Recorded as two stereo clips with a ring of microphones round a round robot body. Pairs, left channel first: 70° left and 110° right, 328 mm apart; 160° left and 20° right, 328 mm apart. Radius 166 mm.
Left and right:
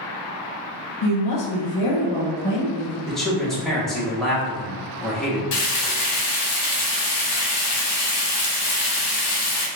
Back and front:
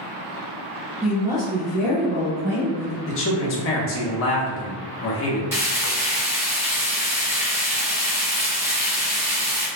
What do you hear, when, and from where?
1.0 s a woman speaking: 60° left, 0.8 m; by 3.0 s 10° right, 1.8 m
3.1 s a man speaking: 155° left, 0.8 m
5.5 s frying: 60° left, 0.9 m